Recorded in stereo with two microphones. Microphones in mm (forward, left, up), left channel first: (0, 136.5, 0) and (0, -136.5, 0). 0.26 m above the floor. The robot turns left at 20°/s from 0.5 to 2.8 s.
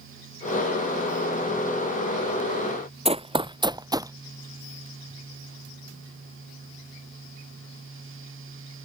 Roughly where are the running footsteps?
Right.